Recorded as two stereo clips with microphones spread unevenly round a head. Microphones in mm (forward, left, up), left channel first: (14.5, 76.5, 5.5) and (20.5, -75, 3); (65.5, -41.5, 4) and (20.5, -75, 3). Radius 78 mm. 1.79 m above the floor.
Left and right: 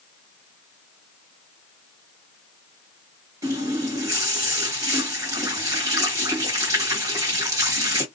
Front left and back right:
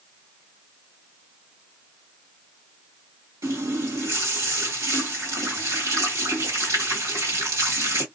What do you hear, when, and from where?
3.4 s a running tap: 155° right, 1.4 m